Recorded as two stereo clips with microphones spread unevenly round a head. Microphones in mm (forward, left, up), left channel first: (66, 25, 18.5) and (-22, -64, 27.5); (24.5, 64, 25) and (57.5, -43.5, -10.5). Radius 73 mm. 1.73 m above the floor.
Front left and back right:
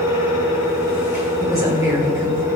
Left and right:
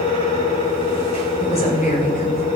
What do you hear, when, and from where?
0.0 s a fan: 155° left, 5.5 m
1.4 s a woman speaking: 155° left, 5 m